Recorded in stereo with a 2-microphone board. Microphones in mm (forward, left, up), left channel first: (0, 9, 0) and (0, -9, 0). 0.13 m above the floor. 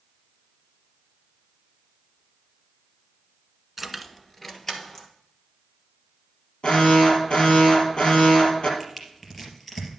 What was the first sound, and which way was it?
Keys jangling, 5° right (ahead or behind).